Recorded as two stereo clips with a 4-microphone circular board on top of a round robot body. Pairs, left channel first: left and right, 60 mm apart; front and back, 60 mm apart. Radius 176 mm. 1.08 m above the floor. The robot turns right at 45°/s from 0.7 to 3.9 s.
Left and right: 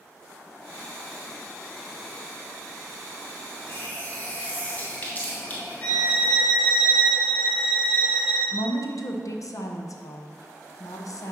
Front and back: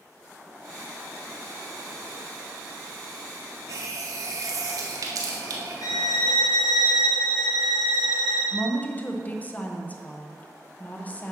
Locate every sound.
3.7 s a running tap: 145° left, 0.5 m; by 6.3 s 155° left, 0.5 m
5.8 s a violin: 25° left, 1.2 m
8.5 s a woman speaking: 65° left, 0.9 m